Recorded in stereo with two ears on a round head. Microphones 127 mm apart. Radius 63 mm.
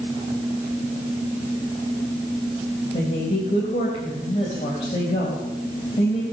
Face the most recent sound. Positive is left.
turn(degrees=45)  # may be behind; listen again after turning